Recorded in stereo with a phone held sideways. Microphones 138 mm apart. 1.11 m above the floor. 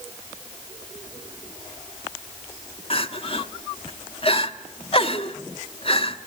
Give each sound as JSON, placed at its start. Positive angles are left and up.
{"t": 2.9, "sound": "crying", "side_deg": 45, "distance_m": 1.1}